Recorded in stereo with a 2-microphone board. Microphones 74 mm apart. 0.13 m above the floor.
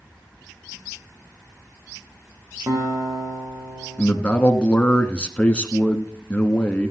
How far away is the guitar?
About 3.5 m.